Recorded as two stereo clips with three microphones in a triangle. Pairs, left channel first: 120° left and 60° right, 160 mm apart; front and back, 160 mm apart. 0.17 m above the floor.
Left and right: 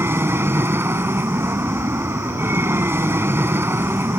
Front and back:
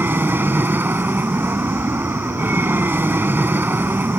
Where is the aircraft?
120° right.